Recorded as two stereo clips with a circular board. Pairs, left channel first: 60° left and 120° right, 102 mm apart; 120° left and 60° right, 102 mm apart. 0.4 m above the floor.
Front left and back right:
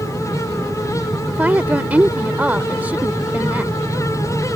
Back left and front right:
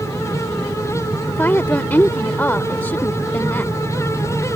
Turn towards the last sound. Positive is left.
turn(degrees=180)